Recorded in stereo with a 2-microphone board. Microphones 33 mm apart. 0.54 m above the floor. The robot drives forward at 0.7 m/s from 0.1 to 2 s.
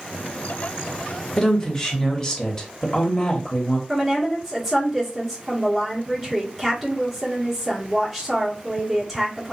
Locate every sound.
1.4 s a woman speaking: 15° left (ahead or behind), 1.0 m; by 3.8 s 20° left (ahead or behind), 0.8 m
3.9 s a woman speaking: centre (ahead or behind), 1.1 m